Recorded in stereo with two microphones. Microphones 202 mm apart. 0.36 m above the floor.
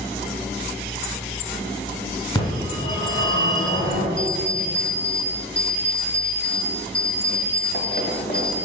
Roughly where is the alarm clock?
Left.